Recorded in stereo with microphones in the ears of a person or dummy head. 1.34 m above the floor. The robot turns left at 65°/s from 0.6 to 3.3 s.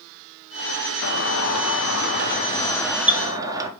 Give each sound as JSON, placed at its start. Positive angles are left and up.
{"t": 1.0, "sound": "a doorbell", "azimuth_deg": 125, "distance_m": 1.0}